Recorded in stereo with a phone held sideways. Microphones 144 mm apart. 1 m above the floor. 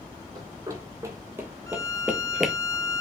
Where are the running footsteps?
25° right (ahead or behind), 1.9 m; by 2.5 s centre (ahead or behind), 1.1 m.